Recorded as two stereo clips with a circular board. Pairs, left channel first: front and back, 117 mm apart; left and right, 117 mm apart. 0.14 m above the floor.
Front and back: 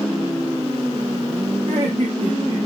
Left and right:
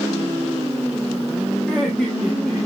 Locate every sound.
1.7 s laughter: 170° left, 6.5 m; by 2.7 s 175° left, 5.5 m